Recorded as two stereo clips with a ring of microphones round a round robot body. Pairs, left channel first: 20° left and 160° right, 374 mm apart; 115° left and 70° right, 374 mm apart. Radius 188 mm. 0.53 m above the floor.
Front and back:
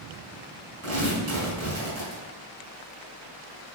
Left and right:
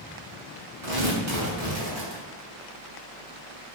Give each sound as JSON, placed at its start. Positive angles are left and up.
{"t": 0.8, "sound": "tearing paper", "azimuth_deg": -105, "distance_m": 4.5}